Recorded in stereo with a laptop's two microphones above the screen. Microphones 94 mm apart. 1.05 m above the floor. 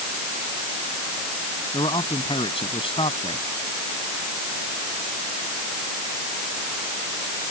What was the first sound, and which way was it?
A man speaking, 75° left (ahead or behind).